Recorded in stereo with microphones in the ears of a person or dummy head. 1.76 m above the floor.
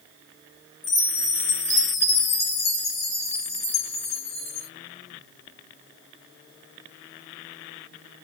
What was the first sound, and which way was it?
A chime, 35° left (ahead or behind).